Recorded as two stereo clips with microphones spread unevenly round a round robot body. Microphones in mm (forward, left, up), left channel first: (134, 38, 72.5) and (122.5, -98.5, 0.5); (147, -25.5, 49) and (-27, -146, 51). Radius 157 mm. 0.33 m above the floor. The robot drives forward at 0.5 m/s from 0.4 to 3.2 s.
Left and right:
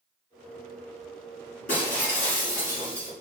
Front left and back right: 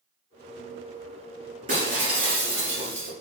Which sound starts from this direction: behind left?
Breaking glass, at 1.7 s.